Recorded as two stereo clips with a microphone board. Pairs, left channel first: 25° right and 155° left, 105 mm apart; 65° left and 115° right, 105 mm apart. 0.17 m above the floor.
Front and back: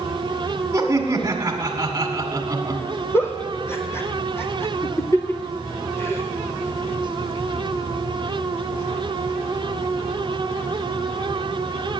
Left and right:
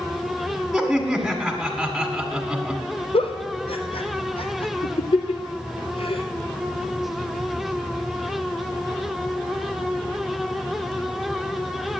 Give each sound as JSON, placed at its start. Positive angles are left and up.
{"t": 0.7, "sound": "laughter", "azimuth_deg": 165, "distance_m": 1.8}
{"t": 3.1, "sound": "a giggle", "azimuth_deg": 45, "distance_m": 1.2}